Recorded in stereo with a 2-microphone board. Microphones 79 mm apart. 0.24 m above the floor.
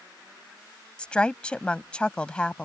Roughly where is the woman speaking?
Centre.